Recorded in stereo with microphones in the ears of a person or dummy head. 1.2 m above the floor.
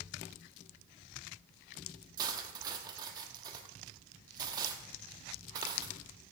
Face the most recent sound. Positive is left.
turn(degrees=-20)  # may be behind; listen again after turning